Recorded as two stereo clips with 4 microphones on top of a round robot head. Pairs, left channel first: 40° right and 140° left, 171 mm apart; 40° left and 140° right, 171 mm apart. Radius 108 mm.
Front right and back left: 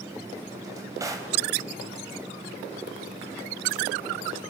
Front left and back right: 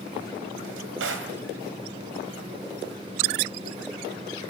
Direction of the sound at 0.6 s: 145° right.